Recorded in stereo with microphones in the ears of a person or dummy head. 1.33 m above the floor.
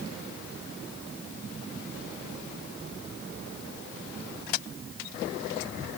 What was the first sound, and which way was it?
Only background noise.